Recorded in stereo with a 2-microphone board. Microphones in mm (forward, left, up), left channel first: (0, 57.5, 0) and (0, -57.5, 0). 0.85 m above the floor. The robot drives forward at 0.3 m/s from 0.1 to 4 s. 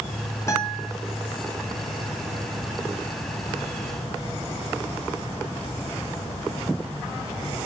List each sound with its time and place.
0.5 s a guitar: 25° left (ahead or behind), 2.0 m